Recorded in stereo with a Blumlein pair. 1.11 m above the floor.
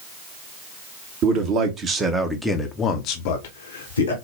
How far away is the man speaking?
About 1.3 m.